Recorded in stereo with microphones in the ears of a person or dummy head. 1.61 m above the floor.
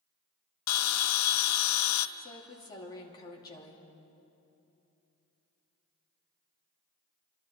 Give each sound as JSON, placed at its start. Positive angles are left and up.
{"t": 0.7, "sound": "a bell", "side_deg": 90, "distance_m": 0.7}
{"t": 2.2, "sound": "a woman speaking", "side_deg": 20, "distance_m": 2.5}